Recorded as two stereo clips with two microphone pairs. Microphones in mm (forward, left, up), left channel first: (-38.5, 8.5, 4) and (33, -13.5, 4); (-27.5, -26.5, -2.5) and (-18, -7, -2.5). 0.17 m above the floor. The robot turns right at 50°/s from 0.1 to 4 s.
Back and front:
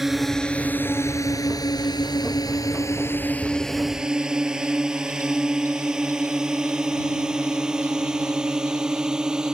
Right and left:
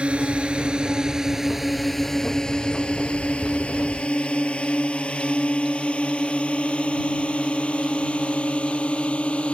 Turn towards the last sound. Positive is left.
turn(degrees=-95)